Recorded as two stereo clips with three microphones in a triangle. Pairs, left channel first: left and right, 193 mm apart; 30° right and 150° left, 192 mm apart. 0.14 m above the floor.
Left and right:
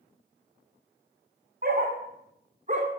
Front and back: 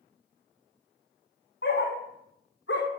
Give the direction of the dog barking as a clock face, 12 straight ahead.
2 o'clock.